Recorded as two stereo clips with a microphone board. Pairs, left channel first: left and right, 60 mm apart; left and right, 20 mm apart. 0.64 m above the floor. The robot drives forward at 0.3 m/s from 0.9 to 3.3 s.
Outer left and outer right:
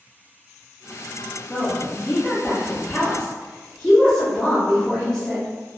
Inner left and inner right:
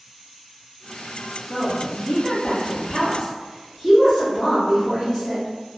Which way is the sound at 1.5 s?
25° left (ahead or behind).